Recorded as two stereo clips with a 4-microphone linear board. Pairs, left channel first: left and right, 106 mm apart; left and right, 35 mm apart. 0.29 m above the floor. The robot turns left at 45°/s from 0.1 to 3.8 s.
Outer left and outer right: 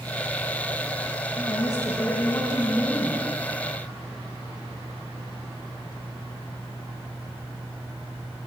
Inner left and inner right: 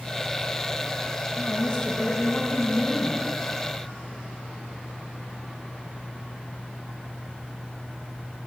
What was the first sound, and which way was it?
A woman speaking, 100° left.